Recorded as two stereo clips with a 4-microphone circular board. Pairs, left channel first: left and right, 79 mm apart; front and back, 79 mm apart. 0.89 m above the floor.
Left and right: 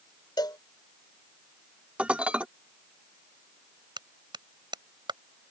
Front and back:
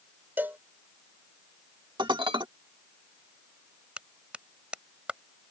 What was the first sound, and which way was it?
A cowbell, 115° left.